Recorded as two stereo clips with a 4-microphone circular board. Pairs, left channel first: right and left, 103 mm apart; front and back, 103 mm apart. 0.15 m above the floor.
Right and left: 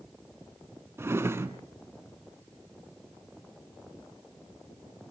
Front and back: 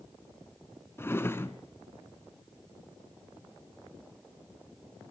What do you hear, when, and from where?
1.0 s a drawer: 45° left, 0.8 m